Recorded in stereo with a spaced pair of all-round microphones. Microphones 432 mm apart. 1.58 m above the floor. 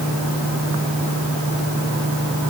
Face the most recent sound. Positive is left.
No sound to turn to.